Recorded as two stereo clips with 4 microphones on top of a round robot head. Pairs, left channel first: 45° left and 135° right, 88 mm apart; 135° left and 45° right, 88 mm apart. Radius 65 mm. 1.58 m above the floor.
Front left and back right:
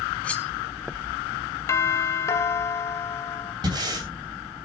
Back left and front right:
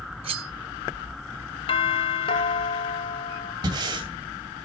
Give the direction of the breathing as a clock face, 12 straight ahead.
3 o'clock.